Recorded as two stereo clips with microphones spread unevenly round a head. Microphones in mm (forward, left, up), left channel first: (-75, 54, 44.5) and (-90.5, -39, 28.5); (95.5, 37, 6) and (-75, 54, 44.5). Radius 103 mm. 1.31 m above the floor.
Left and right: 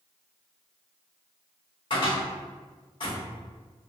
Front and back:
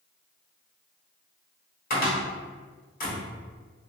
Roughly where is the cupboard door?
Ahead left.